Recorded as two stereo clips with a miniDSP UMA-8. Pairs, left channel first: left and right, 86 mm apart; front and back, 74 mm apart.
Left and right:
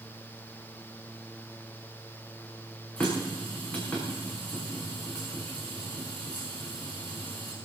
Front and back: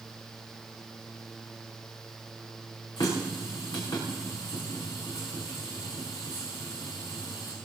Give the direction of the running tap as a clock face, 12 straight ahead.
11 o'clock.